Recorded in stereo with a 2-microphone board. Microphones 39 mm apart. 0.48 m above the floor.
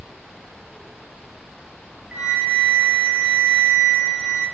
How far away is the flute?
About 3.5 m.